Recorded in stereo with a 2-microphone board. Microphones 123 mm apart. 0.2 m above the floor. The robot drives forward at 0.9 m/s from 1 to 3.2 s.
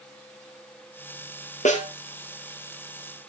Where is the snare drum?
75° left (ahead or behind), 3.5 m.